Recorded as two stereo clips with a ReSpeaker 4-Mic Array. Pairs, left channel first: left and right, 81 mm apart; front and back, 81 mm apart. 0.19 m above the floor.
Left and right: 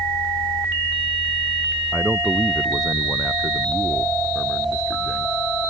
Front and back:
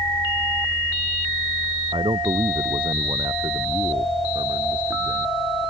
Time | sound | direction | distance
1.9 | a man speaking | 175° left | ?